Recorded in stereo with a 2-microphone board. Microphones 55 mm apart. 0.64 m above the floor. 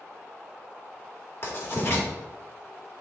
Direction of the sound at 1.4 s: 45° left (ahead or behind).